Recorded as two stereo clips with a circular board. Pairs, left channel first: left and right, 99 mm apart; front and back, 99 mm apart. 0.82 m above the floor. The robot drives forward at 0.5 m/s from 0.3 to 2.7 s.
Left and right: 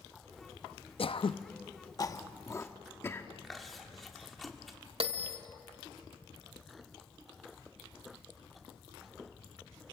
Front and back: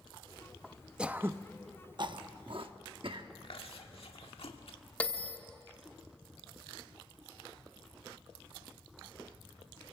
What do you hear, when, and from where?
1.0 s throat clearing: 100° left, 0.5 m; by 3.3 s 155° left, 1.0 m
3.4 s chewing: straight ahead, 1.7 m
5.0 s a bell: 75° right, 1.2 m